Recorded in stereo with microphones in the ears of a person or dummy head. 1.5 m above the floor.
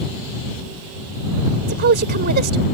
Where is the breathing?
I don't hear breathing.